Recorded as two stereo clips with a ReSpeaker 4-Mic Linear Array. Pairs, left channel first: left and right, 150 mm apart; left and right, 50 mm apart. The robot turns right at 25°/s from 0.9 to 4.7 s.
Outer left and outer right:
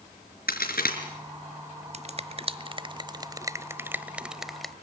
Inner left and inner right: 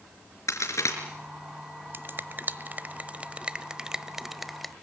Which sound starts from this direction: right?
A finger snap, at 1.9 s.